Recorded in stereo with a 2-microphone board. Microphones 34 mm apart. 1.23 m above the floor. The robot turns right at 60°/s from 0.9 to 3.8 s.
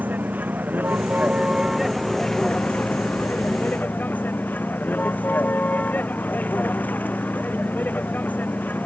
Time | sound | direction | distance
0.0 | a vehicle | 60° right | ?